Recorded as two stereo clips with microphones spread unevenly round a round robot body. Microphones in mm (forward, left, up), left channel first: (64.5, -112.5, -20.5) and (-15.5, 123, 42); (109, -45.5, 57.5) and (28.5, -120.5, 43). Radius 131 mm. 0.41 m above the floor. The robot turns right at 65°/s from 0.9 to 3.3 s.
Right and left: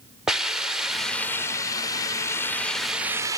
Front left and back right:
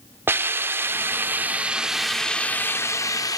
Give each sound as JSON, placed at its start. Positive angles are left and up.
{"t": 0.3, "sound": "a hiss", "azimuth_deg": -135}